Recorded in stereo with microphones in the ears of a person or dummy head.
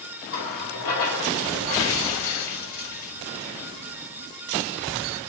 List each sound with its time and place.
0.3 s a running tap: 80° left, 2.5 m